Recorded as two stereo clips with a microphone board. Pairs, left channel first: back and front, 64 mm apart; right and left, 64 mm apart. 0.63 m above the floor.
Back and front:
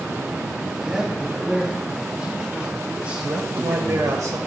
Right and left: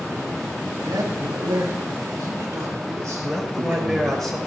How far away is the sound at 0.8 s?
About 3 m.